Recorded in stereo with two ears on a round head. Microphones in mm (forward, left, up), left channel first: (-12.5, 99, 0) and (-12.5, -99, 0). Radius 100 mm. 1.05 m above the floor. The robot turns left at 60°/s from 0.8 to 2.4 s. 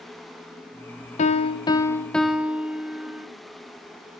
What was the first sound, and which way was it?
A piano, 65° left.